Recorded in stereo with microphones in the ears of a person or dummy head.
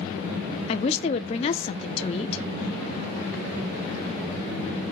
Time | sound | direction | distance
0.7 | a woman speaking | 25° left (ahead or behind) | 0.5 m